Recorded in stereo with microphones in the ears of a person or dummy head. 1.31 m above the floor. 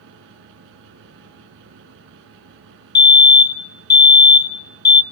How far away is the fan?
About 3.5 m.